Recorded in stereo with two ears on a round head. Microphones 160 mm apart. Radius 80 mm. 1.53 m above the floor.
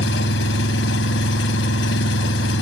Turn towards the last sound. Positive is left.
turn(degrees=75)  # may be behind; listen again after turning